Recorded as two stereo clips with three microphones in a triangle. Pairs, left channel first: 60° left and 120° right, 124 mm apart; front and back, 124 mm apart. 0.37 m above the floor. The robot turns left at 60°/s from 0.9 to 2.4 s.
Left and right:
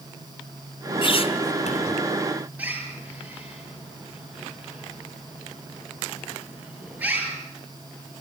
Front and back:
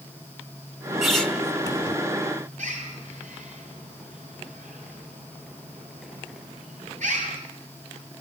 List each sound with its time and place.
1.0 s a squeak: 95° left, 1.6 m; by 2.0 s 40° left, 1.6 m
2.6 s a bird: 165° left, 7 m